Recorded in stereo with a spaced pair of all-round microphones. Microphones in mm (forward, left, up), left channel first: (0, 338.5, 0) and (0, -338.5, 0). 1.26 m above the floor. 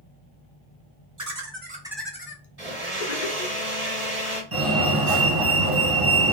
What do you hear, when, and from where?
1.2 s laughter: 30° right (ahead or behind), 0.8 m; by 3.6 s 80° left, 0.8 m
2.6 s a blender: 25° right (ahead or behind), 1.4 m
4.5 s a fire alarm: 30° right (ahead or behind), 1.3 m